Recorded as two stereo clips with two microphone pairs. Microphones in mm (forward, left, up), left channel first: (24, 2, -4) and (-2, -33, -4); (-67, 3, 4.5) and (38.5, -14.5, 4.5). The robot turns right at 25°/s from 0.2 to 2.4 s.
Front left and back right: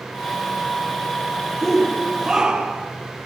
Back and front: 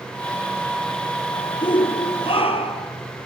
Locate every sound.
1.6 s a shout: 145° left, 3.5 m; by 2.9 s 165° left, 3.5 m